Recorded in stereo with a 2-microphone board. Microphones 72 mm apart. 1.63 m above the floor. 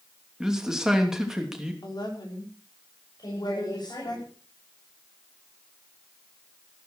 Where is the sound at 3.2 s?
60° left (ahead or behind), 7 m.